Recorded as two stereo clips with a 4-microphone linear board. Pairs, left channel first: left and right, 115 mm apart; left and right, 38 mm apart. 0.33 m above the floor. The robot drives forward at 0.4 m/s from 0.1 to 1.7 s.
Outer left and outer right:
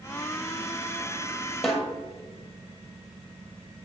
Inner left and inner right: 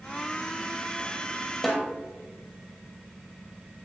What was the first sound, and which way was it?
A snare drum, centre (ahead or behind).